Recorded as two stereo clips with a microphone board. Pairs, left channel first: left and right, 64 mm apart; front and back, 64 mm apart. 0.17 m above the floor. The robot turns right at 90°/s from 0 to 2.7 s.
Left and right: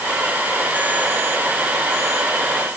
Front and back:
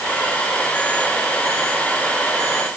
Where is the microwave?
No microwave in this recording.